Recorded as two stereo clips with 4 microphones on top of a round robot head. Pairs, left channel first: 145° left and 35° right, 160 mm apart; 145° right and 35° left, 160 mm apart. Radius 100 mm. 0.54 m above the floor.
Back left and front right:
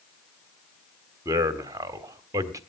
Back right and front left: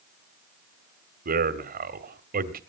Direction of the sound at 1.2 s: 35° left.